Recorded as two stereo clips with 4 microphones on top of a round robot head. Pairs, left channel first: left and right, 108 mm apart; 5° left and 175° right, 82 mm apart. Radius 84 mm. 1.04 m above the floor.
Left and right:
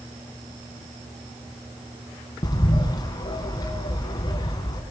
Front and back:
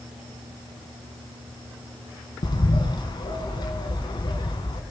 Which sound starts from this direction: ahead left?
A bird, at 2.4 s.